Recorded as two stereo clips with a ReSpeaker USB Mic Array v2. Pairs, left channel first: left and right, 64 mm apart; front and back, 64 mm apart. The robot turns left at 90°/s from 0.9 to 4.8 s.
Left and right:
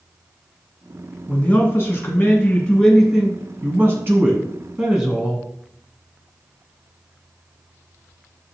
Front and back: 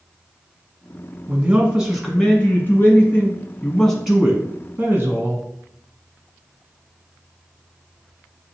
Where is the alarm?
I don't hear an alarm.